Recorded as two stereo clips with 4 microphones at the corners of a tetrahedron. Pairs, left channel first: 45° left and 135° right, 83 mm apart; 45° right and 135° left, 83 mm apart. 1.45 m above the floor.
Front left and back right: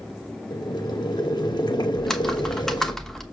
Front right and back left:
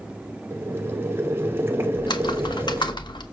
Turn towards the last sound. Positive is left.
turn(degrees=-40)